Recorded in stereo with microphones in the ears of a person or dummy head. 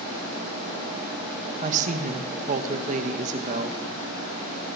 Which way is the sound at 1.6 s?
45° right (ahead or behind).